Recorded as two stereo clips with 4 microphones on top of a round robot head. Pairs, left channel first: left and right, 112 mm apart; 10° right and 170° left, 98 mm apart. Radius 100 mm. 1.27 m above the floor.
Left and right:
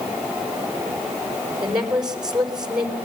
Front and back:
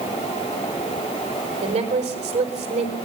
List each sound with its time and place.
1.6 s a woman speaking: 175° right, 4 m